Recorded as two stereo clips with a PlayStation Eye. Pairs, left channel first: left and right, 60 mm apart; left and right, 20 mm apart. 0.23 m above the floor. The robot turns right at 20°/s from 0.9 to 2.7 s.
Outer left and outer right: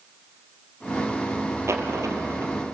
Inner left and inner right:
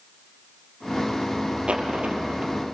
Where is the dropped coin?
55° right (ahead or behind), 2.5 m; by 2.5 s 70° right (ahead or behind), 2.5 m.